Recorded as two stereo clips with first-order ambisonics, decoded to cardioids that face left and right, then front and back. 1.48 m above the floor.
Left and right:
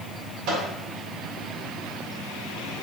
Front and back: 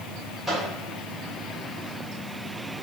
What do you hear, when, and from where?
0.5 s a microwave: 90° right, 1.6 m